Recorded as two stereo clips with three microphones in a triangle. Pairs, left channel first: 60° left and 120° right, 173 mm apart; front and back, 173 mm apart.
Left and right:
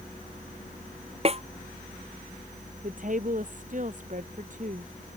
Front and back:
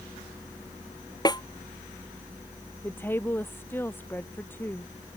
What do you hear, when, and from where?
1.2 s a snare drum: 65° right
2.8 s a woman speaking: 80° right